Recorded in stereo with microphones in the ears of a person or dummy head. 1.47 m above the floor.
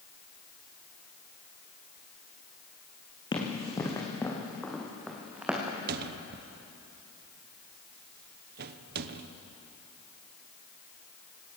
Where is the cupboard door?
50° right (ahead or behind), 0.9 m.